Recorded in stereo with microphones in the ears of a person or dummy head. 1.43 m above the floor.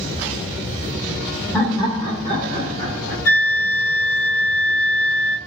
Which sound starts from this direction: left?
A flute, at 3.2 s.